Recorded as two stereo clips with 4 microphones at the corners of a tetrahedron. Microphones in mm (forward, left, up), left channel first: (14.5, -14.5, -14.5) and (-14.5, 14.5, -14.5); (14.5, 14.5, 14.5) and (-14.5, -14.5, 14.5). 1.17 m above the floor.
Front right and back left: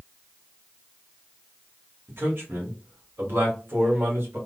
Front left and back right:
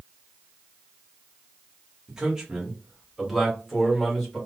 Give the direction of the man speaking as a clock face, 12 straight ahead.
7 o'clock.